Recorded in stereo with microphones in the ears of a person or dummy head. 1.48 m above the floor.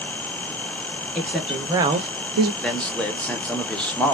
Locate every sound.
1.1 s a woman speaking: 5° left (ahead or behind), 1.1 m; by 2.5 s 80° right, 0.5 m
2.6 s a man speaking: 10° left (ahead or behind), 0.6 m